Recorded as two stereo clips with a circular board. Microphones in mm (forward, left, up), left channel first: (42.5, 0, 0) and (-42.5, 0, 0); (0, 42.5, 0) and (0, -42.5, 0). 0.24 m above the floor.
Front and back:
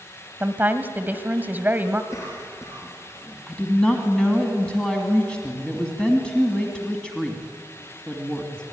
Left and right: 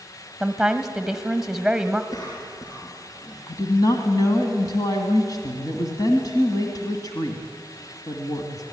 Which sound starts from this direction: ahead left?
A cough, at 2.1 s.